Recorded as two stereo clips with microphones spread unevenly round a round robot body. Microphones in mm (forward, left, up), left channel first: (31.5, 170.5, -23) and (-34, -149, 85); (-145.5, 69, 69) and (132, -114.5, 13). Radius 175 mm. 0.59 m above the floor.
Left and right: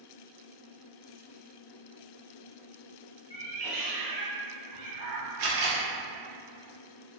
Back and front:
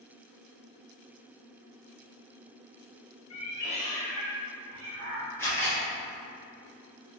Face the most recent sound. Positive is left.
turn(degrees=-130)